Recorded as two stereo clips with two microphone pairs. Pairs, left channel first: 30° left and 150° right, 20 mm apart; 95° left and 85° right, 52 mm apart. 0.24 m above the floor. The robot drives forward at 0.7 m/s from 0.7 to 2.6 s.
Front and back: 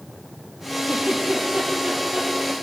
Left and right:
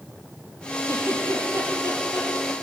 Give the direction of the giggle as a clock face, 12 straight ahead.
4 o'clock.